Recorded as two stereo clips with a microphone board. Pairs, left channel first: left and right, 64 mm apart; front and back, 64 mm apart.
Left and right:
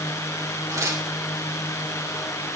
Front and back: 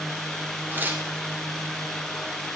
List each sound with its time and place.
0.7 s tearing paper: 120° right, 2 m